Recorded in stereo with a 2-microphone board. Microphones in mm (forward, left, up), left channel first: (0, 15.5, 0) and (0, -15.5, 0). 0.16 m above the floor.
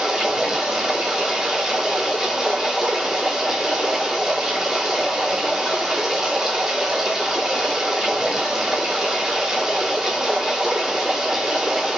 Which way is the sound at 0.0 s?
15° right (ahead or behind).